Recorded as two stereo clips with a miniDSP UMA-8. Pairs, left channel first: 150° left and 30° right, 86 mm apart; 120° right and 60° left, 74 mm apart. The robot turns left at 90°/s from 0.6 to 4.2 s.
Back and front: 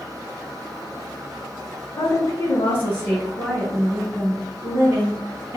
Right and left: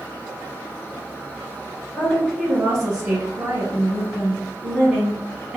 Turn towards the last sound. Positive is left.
turn(degrees=-5)